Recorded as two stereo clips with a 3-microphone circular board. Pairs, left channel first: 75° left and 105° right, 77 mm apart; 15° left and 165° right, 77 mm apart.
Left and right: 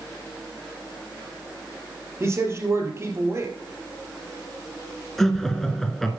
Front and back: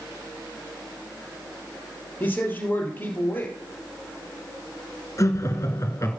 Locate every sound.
2.2 s a man speaking: 50° right, 3 m
5.2 s laughter: 10° right, 1.8 m